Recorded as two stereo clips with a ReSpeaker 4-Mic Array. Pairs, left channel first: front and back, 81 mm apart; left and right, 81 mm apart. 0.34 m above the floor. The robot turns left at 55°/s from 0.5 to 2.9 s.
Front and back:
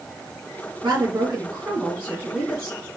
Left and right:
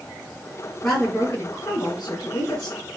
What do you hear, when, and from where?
0.8 s a woman speaking: 165° left, 3 m; by 2.8 s 60° left, 3 m